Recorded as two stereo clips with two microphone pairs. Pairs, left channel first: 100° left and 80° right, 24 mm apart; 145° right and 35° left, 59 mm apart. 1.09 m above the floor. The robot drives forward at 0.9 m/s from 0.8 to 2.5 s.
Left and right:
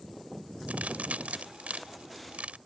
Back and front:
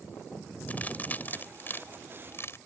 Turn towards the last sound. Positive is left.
turn(degrees=-100)